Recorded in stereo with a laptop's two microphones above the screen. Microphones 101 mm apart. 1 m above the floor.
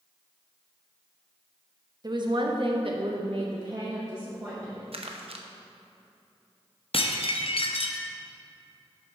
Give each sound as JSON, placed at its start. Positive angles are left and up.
{"t": 2.0, "sound": "a woman speaking", "side_deg": -40, "distance_m": 1.1}
{"t": 4.9, "sound": "crumpling", "side_deg": -65, "distance_m": 0.8}
{"t": 6.9, "sound": "dishes clattering", "side_deg": 60, "distance_m": 0.7}